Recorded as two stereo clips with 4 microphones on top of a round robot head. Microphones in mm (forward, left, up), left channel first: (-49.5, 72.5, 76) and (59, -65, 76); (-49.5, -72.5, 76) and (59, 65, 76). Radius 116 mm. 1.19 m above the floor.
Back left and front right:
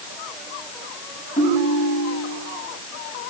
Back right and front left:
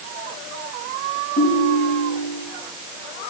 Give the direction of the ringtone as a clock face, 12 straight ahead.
6 o'clock.